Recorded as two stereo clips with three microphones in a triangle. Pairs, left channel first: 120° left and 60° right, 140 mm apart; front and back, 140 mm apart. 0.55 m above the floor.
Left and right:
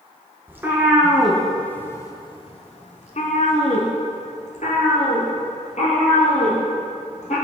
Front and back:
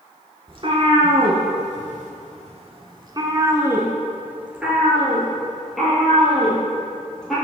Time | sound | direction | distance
0.5 | a cat meowing | 135° right | 1.1 m